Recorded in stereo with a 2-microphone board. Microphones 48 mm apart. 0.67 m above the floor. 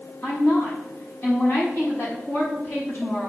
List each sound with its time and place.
0.2 s a woman speaking: 50° left (ahead or behind), 5 m